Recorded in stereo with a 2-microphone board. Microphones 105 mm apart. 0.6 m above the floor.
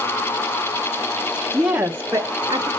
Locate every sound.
1.5 s a woman speaking: 5° right (ahead or behind), 0.9 m; by 2.7 s 40° right (ahead or behind), 1.1 m